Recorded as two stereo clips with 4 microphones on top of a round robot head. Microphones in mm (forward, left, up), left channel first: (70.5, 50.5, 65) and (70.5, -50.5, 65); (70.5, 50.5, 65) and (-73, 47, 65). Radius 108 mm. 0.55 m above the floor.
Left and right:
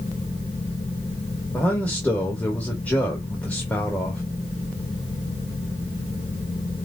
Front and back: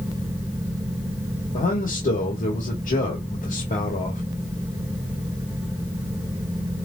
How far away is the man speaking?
About 1.9 m.